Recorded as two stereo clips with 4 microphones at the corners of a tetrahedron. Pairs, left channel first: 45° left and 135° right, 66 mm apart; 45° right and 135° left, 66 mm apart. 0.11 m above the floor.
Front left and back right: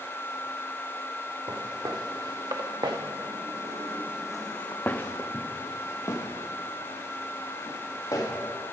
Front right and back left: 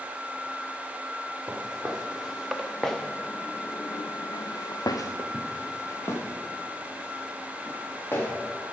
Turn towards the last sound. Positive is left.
turn(degrees=10)